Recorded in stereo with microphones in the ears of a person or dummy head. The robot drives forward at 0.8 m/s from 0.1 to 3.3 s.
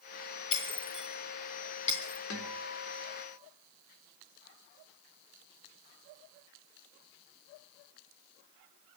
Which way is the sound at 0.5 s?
30° left (ahead or behind).